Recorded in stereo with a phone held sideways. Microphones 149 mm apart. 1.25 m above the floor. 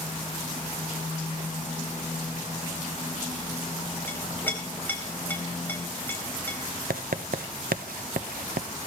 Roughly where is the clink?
Centre.